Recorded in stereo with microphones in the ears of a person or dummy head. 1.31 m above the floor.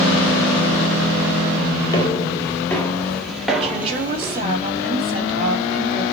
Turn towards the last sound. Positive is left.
turn(degrees=-35)  # may be behind; listen again after turning